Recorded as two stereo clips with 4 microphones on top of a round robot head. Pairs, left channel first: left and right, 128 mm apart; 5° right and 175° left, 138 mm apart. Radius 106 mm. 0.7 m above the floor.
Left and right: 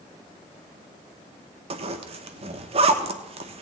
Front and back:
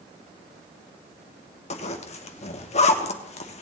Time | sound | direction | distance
1.7 | a zipper | 45° right | 0.8 m